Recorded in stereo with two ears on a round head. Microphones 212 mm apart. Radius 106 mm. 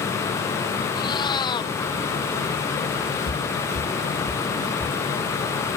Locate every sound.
0.9 s a cat meowing: 20° left (ahead or behind)
3.3 s footsteps: 45° left (ahead or behind); by 5.0 s 5° right (ahead or behind)